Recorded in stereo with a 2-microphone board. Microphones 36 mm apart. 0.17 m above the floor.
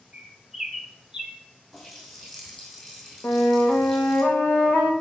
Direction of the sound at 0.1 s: 10° right (ahead or behind).